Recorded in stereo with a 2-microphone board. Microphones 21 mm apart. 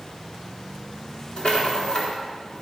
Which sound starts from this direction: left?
A rattle, at 1.4 s.